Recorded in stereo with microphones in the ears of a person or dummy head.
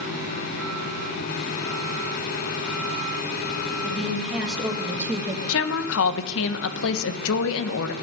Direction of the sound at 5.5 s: 80° left.